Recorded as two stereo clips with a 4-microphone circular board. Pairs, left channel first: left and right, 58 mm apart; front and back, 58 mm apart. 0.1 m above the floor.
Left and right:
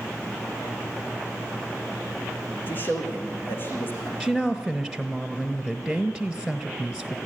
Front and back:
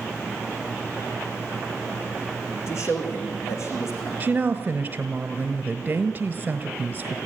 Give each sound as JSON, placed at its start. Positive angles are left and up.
{"t": 2.7, "sound": "a man speaking", "azimuth_deg": 30, "distance_m": 5.5}
{"t": 4.2, "sound": "a woman speaking", "azimuth_deg": 165, "distance_m": 1.2}